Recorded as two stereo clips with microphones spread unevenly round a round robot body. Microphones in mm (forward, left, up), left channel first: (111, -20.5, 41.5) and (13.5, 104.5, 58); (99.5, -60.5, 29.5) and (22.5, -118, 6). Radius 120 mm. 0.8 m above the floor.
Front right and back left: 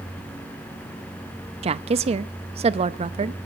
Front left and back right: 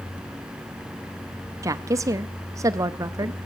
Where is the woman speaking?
Straight behind, 0.5 m.